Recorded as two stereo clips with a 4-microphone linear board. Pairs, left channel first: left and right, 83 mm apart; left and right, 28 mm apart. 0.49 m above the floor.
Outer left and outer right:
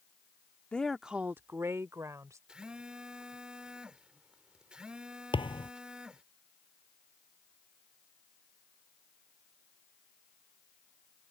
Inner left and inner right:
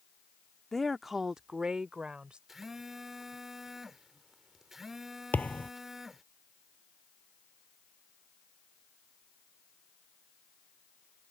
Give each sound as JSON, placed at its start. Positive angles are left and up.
{"t": 0.7, "sound": "a woman speaking", "side_deg": 15}
{"t": 2.5, "sound": "a phone buzzing", "side_deg": -10}
{"t": 5.3, "sound": "a thud", "side_deg": 85}